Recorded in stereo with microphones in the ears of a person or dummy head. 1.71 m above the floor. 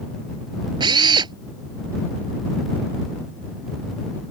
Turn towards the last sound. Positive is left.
turn(degrees=-25)  # may be behind; listen again after turning